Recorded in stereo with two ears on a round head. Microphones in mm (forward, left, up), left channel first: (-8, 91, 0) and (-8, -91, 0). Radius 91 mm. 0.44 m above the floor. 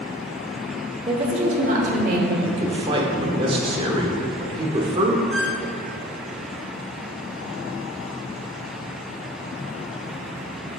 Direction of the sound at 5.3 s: Centre (ahead or behind).